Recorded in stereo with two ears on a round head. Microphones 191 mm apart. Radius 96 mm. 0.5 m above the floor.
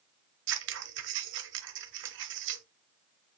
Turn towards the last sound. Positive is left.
turn(degrees=-60)  # may be behind; listen again after turning